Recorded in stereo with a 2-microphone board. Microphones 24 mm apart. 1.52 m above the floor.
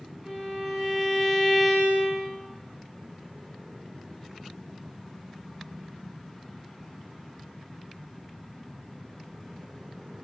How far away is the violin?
About 5.5 m.